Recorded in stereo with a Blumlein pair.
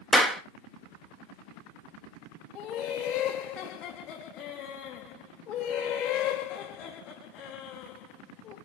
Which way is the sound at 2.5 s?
30° left.